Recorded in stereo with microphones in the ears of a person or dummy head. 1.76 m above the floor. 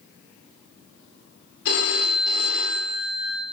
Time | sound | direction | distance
1.6 | a phone ringing | 65° left (ahead or behind) | 2.5 m